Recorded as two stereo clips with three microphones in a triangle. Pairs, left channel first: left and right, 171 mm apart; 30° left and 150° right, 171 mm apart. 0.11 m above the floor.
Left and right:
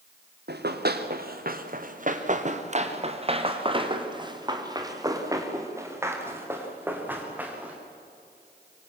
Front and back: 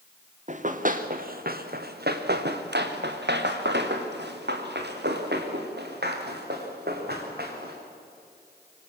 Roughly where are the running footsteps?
Right.